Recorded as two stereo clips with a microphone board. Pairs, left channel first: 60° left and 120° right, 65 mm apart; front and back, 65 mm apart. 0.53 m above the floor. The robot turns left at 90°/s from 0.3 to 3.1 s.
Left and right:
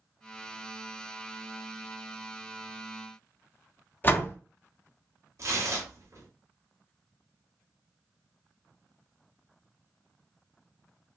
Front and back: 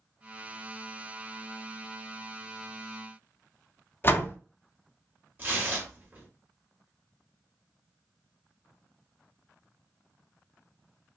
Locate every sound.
4.0 s a door slam: 25° left, 0.5 m
5.4 s tearing paper: 125° right, 1.1 m